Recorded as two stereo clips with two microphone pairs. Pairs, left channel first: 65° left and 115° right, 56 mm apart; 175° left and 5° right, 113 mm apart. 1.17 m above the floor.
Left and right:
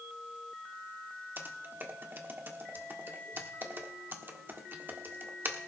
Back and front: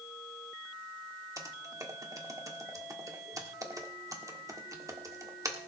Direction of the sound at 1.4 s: 65° right.